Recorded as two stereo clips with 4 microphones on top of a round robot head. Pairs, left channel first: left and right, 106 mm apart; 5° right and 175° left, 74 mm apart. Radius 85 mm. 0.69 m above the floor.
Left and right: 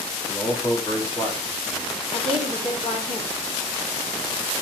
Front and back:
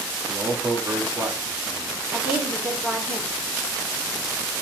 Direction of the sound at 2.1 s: 100° left.